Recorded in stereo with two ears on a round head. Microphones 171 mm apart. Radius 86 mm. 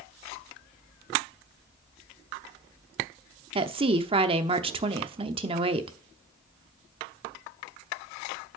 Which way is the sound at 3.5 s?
30° right (ahead or behind).